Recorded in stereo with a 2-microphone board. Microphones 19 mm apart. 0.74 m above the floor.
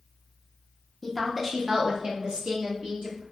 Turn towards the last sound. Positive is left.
turn(degrees=-70)  # may be behind; listen again after turning